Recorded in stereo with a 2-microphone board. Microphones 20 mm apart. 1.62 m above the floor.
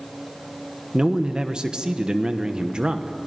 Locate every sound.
0.9 s a man speaking: 40° right (ahead or behind), 1.1 m